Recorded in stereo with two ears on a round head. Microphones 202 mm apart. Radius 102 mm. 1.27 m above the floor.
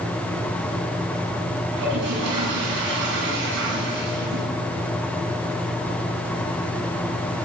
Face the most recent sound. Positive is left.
turn(degrees=-55)  # may be behind; listen again after turning